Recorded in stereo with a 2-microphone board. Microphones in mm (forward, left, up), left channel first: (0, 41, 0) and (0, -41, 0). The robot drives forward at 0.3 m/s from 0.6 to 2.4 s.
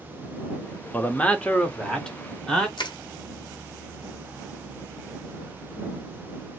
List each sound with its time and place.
0.9 s a man speaking: 20° left (ahead or behind), 0.5 m; by 2.7 s 10° left (ahead or behind), 1.0 m
2.8 s crushing: 65° left (ahead or behind), 0.7 m